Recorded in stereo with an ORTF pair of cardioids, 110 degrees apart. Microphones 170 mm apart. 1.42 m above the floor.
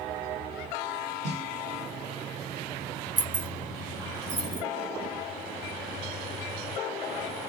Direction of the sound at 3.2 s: 45° right.